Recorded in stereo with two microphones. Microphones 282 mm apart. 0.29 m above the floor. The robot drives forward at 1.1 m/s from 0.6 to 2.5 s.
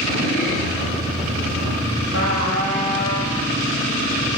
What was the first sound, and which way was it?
A trumpet, 50° left (ahead or behind).